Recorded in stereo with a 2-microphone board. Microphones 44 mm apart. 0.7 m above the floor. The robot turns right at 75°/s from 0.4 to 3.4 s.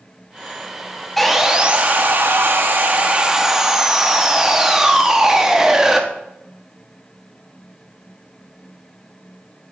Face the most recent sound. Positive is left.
turn(degrees=-15)